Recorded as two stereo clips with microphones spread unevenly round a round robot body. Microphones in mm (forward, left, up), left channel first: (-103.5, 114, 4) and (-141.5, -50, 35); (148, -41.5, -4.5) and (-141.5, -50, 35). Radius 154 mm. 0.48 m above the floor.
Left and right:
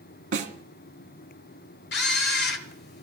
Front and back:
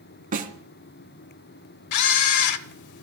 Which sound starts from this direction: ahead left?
A camera shutter, at 1.9 s.